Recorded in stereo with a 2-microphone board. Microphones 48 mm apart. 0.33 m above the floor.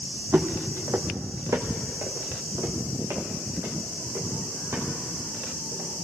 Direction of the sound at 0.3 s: 40° right (ahead or behind).